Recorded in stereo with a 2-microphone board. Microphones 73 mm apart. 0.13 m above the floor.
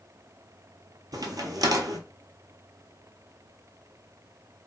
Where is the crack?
65° right (ahead or behind), 0.7 m.